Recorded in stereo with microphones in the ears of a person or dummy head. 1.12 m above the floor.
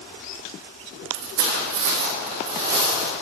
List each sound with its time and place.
1.1 s footsteps: 60° right (ahead or behind), 2 m; by 3.1 s 15° right (ahead or behind), 3 m